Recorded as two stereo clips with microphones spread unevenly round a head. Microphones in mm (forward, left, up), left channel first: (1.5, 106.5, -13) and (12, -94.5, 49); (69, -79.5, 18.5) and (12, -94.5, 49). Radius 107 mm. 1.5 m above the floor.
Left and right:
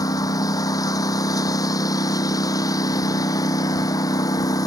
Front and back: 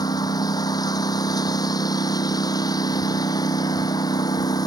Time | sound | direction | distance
0.0 | a lawn mower | 20° left | ?